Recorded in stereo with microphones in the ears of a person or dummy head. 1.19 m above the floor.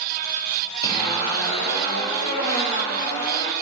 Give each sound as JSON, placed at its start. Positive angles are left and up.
{"t": 0.8, "sound": "a zipper", "side_deg": 25, "distance_m": 4.5}